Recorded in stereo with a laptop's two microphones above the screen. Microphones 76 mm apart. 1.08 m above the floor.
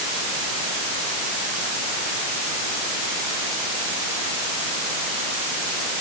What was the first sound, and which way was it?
Only background noise.